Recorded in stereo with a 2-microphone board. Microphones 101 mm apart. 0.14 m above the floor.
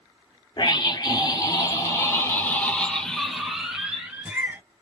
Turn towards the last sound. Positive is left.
turn(degrees=-25)  # may be behind; listen again after turning